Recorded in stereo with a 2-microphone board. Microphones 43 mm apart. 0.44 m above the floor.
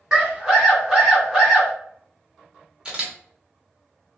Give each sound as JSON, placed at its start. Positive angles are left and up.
{"t": 0.1, "sound": "a scream", "side_deg": -15, "distance_m": 1.8}
{"t": 2.9, "sound": "a camera shutter", "side_deg": -20, "distance_m": 0.9}